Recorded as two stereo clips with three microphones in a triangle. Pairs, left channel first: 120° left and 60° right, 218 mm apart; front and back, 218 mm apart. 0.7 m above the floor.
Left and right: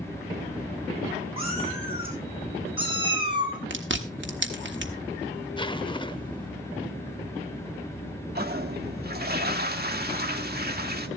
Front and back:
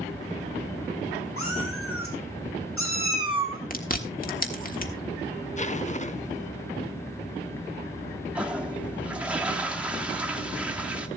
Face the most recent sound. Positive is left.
turn(degrees=-95)